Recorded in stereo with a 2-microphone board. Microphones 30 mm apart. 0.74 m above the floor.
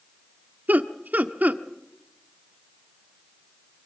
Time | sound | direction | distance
0.7 | laughter | 75° right (ahead or behind) | 1.3 m